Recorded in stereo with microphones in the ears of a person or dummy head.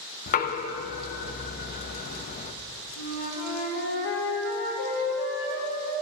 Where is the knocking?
40° left (ahead or behind), 0.5 m.